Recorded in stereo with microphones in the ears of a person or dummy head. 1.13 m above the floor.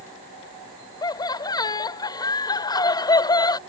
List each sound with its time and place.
1.0 s laughter: 20° left (ahead or behind)